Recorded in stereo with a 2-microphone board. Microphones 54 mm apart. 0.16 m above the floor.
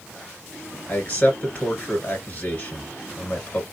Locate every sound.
0.9 s a man speaking: 30° left (ahead or behind), 2 m